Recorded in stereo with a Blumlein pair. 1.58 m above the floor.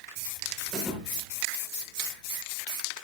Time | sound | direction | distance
0.7 | a thud | straight ahead | 5 m